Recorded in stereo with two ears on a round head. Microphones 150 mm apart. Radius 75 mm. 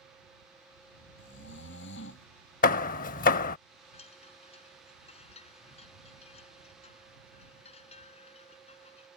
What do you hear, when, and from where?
1.2 s snoring: 85° left
2.6 s hammering: 50° left (ahead or behind)
3.9 s a chime: 40° left (ahead or behind)